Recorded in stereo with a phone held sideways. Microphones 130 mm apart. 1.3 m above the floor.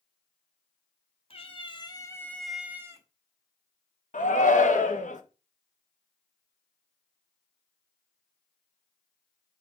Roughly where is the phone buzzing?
I don't hear a phone buzzing.